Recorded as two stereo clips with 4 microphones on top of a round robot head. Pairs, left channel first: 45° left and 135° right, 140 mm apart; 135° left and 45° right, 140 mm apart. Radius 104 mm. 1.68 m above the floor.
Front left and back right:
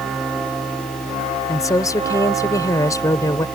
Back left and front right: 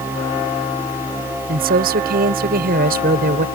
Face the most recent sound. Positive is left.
turn(degrees=-25)